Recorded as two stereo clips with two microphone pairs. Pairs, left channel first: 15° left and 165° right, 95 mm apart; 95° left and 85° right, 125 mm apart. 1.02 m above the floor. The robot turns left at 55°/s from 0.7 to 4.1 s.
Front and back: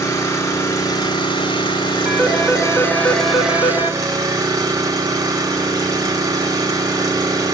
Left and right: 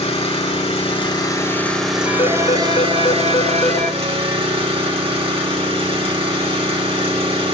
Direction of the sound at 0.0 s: 65° left.